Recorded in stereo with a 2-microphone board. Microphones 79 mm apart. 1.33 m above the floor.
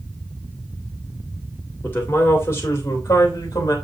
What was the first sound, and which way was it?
A man speaking, 25° left (ahead or behind).